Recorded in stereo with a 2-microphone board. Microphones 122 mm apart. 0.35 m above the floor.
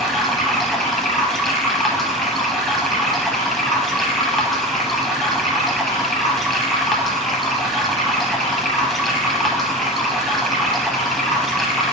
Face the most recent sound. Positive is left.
turn(degrees=0)  # may be behind; listen again after turning